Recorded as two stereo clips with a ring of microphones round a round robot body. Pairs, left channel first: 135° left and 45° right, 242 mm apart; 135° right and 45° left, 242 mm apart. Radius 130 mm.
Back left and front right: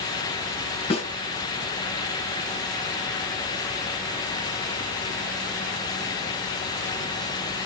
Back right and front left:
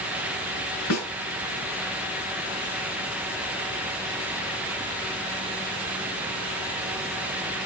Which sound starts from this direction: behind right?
A snare drum, at 0.9 s.